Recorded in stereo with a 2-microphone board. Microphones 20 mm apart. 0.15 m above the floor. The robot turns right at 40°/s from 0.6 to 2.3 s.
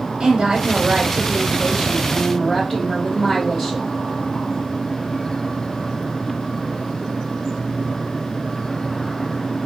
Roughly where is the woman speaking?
Ahead right.